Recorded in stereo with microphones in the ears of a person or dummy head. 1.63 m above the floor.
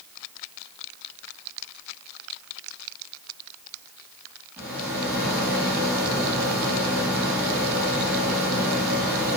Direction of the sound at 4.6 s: 5° right (ahead or behind).